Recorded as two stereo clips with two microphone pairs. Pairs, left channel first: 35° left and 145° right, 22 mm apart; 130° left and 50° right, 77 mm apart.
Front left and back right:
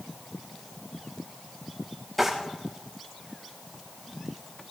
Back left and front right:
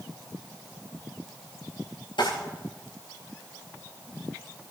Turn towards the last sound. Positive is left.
turn(degrees=130)